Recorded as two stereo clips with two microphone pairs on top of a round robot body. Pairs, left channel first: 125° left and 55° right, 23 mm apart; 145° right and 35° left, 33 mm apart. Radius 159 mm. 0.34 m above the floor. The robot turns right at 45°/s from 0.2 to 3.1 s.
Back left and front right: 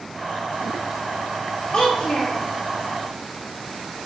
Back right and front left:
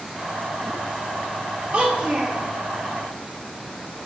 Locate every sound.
1.7 s a child speaking: 65° left, 0.6 m; by 2.4 s 95° left, 0.6 m